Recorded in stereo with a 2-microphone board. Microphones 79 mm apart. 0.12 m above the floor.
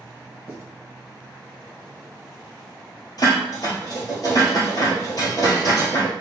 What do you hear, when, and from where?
0.5 s writing: 30° right (ahead or behind), 1.6 m
3.2 s dishes clattering: 50° left (ahead or behind), 1.8 m